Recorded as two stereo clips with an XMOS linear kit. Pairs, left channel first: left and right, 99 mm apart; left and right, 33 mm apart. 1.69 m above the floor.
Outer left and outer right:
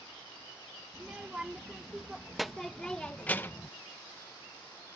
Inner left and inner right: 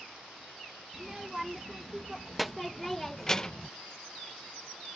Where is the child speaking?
15° right (ahead or behind); by 3.7 s 30° left (ahead or behind).